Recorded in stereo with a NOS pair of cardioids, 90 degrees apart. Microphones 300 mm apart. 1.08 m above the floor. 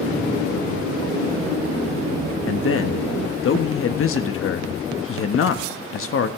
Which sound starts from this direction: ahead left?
A man speaking, at 2.5 s.